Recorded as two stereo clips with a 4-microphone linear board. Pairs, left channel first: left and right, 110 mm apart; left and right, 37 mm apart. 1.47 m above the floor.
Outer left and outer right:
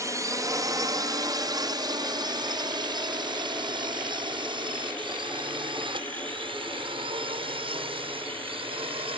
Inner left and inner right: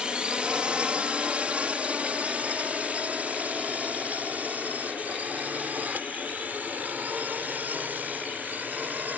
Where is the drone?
30° right (ahead or behind); by 9.2 s 55° right (ahead or behind).